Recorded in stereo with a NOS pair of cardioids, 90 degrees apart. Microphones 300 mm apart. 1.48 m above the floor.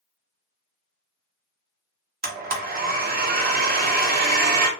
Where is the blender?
30° right, 0.7 m.